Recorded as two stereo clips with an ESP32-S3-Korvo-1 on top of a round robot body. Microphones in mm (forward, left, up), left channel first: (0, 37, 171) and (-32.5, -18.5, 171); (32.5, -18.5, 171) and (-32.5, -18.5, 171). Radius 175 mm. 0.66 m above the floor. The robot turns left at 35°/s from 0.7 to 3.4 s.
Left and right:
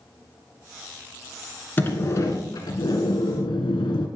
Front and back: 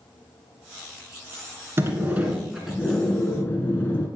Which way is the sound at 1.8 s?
125° left.